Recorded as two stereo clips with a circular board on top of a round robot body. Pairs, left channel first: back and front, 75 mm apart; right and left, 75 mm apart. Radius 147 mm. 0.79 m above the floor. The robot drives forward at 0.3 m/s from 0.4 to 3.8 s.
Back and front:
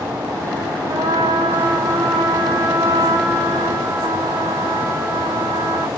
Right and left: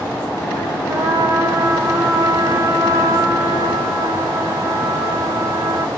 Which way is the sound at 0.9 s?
30° left.